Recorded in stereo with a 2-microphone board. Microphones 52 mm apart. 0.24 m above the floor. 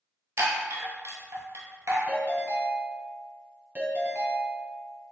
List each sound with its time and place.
0.4 s a chime: 70° right (ahead or behind), 1.0 m
2.1 s a ringtone: 35° right (ahead or behind), 1.0 m